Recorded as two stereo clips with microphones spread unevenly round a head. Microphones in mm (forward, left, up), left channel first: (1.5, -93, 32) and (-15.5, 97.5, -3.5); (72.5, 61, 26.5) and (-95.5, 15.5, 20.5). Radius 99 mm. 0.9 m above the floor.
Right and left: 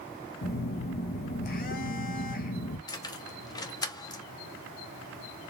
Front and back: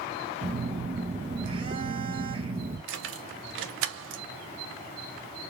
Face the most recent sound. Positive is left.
turn(degrees=-160)